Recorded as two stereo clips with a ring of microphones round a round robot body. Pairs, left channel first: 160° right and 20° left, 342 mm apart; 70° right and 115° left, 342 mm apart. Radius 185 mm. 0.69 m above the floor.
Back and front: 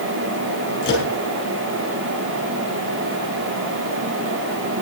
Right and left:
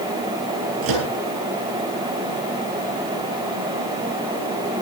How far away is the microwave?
About 7.5 m.